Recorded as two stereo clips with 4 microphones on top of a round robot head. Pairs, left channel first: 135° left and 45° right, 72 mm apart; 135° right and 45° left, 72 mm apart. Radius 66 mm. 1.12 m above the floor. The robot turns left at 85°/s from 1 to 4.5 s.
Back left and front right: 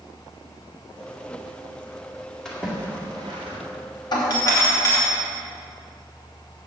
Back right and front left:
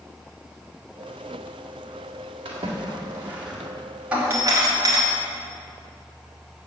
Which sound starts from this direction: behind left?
A doorbell, at 4.1 s.